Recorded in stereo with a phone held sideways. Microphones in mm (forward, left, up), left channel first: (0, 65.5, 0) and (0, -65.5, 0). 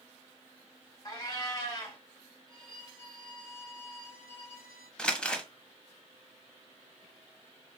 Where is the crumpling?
5° left (ahead or behind), 0.8 m.